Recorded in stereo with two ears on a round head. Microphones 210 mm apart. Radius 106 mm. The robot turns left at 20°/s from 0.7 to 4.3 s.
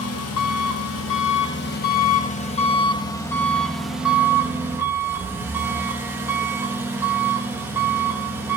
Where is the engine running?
65° left, 0.9 m; by 8.6 s 10° right, 0.9 m.